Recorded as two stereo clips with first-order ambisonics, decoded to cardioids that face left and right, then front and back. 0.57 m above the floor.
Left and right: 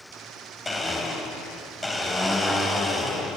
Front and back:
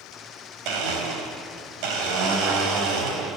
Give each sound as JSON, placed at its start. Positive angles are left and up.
{"t": 0.7, "sound": "a blender", "azimuth_deg": 170, "distance_m": 3.5}